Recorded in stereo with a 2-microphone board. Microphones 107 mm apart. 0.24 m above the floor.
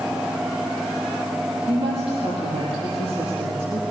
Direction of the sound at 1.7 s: 60° right (ahead or behind).